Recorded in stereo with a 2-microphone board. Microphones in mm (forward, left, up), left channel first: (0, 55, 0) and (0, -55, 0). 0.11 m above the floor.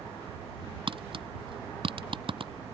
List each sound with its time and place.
0.9 s tapping: 55° right (ahead or behind)